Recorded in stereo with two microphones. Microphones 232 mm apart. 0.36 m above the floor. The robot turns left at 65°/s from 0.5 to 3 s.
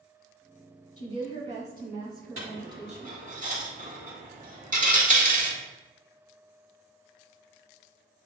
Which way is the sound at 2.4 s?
75° right (ahead or behind).